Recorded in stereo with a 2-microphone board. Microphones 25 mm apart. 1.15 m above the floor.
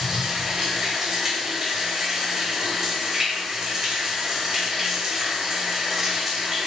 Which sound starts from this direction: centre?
Running water, at 0.0 s.